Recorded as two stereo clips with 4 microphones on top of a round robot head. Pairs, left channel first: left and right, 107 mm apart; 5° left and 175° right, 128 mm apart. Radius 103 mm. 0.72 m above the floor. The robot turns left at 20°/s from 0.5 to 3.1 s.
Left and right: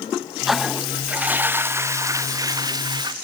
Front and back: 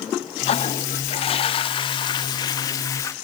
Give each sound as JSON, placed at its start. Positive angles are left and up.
{"t": 0.5, "sound": "a toilet flushing", "azimuth_deg": -5, "distance_m": 0.5}